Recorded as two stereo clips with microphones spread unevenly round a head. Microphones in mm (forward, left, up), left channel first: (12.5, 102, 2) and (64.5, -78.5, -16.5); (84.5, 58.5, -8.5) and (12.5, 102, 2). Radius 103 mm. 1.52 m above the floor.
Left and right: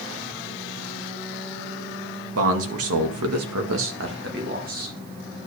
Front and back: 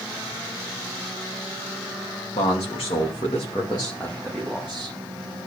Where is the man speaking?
70° right, 2.5 m; by 5.0 s 130° right, 2.5 m.